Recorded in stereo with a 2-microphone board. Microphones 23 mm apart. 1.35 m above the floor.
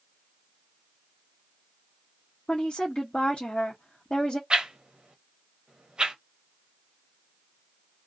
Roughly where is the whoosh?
Right.